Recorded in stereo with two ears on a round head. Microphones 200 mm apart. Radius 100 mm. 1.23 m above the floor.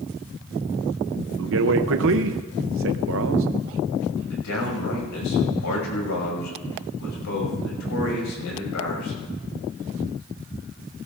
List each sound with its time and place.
1.4 s a man speaking: 65° right (ahead or behind), 0.7 m
4.3 s a man speaking: 85° left, 6 m